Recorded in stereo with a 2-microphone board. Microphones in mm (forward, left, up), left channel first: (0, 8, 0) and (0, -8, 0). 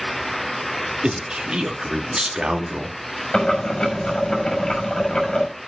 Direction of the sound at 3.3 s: 50° left (ahead or behind).